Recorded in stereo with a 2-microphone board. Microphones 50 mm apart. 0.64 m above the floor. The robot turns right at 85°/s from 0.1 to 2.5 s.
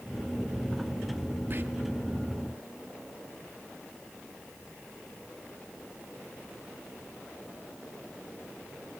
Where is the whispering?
40° right (ahead or behind), 0.7 m; by 1.6 s 45° right (ahead or behind), 0.7 m.